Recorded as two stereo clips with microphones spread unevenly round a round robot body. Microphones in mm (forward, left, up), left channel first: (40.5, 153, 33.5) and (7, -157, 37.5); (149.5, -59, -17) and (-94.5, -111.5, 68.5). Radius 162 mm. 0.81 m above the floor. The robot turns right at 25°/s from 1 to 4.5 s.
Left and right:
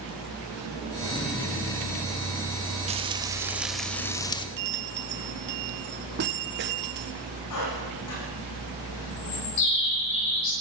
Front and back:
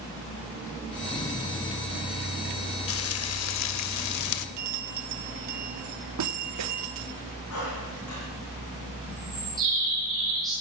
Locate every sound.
2.9 s frying: 30° right, 0.8 m; by 4.5 s 10° left, 0.8 m
4.6 s a bell: 155° right, 1.4 m
7.5 s a squeak: 60° left, 9.5 m
9.1 s a bird: 105° left, 10 m